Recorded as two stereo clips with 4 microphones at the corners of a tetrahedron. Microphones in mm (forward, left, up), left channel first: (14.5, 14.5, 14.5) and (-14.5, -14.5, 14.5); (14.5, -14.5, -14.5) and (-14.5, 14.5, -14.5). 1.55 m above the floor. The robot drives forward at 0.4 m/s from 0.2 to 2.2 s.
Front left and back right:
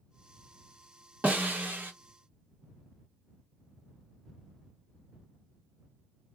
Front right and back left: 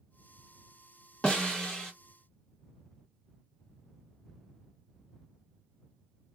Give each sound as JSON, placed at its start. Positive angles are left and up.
{"t": 1.2, "sound": "a snare drum", "azimuth_deg": -100, "distance_m": 1.1}